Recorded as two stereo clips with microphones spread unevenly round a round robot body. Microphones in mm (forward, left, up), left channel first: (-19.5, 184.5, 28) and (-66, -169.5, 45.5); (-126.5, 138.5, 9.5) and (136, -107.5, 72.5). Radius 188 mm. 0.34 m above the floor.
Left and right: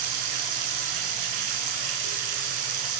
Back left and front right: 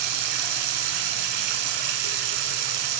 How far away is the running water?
About 2.5 m.